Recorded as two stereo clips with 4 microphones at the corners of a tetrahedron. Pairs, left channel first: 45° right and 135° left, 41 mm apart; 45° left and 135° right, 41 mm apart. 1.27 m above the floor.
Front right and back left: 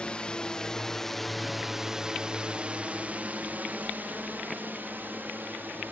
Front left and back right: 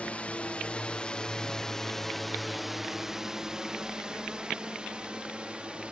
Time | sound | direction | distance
0.0 | a drone | 5° left | ?